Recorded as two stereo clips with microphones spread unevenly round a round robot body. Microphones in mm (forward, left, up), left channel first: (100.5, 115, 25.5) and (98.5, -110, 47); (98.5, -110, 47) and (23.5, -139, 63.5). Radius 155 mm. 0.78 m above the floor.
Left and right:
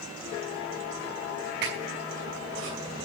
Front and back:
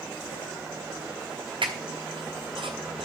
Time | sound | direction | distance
1.6 | a squeak | 150° right | 5.5 m